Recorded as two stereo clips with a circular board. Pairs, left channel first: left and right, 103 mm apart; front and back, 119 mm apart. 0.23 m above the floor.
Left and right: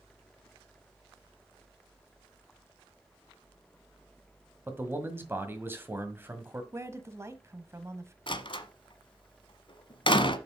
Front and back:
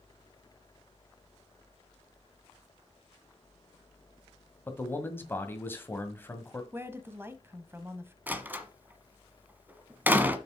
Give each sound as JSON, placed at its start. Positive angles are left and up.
{"t": 4.7, "sound": "a man speaking", "azimuth_deg": -50, "distance_m": 1.7}
{"t": 6.7, "sound": "a woman speaking", "azimuth_deg": -125, "distance_m": 1.1}
{"t": 8.3, "sound": "a door slam", "azimuth_deg": 105, "distance_m": 1.2}